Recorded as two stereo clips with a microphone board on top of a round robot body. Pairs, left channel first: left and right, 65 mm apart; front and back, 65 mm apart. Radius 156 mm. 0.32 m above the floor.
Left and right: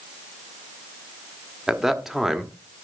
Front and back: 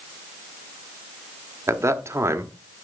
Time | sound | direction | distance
1.7 | a man speaking | 170° right | 1.7 m